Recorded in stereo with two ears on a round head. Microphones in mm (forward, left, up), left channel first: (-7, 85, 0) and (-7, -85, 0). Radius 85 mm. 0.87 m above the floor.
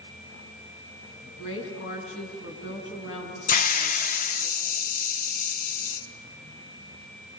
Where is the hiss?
45° left (ahead or behind), 1.2 m.